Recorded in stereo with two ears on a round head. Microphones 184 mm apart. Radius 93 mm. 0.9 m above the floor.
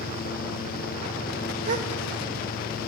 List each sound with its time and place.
1.6 s a gasp: 35° right (ahead or behind), 0.8 m